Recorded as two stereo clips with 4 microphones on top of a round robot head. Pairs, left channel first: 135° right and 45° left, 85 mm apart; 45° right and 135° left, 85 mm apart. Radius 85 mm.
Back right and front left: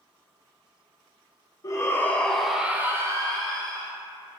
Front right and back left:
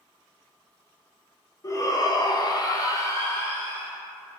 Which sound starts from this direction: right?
A shout, at 1.6 s.